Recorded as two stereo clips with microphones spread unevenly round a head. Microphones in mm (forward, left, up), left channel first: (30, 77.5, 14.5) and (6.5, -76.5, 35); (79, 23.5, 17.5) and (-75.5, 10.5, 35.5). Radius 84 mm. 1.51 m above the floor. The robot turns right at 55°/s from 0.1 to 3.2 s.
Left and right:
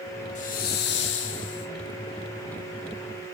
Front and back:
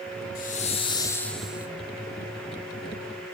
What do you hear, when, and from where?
0.3 s a hiss: 35° left, 0.5 m; by 1.7 s 110° left, 0.5 m